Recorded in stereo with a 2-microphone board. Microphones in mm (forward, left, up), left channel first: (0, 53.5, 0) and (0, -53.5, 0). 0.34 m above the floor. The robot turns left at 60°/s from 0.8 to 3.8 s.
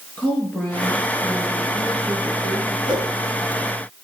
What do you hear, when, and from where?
0.2 s a woman speaking: 15° left, 5.5 m; by 2.8 s 105° right, 5.5 m
2.9 s a whoosh: 45° right (ahead or behind), 2 m; by 3.1 s 30° right (ahead or behind), 2 m